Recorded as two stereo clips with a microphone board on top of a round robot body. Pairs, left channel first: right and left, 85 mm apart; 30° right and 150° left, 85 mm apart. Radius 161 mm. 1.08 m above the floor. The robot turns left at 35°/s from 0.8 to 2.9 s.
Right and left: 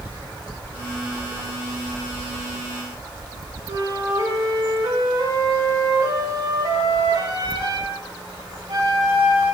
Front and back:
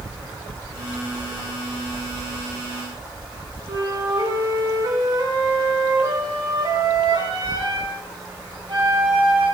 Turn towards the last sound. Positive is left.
turn(degrees=125)